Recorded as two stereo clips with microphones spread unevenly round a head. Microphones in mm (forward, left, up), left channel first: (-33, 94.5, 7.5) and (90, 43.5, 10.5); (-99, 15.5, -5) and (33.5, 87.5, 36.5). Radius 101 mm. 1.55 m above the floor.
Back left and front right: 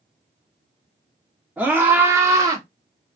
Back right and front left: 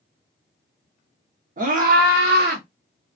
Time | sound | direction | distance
1.6 | a scream | 60° left | 2 m